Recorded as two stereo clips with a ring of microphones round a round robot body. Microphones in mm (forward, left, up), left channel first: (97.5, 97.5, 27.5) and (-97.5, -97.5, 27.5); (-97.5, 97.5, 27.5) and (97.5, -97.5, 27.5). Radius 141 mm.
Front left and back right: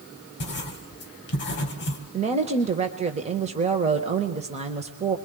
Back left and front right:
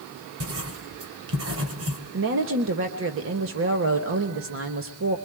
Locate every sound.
0.4 s writing: 5° right, 2.5 m
2.1 s a woman speaking: 75° right, 1.3 m